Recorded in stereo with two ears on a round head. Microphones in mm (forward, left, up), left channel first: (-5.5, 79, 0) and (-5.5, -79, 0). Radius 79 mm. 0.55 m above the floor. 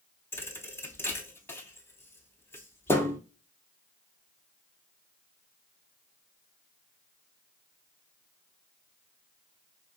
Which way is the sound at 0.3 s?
15° left (ahead or behind).